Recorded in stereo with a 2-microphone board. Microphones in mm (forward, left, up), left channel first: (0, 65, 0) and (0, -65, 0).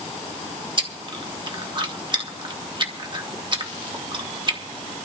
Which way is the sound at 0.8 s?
40° right (ahead or behind).